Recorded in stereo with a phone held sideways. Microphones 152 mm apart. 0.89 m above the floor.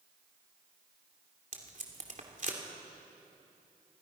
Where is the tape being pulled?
55° right (ahead or behind), 2.5 m.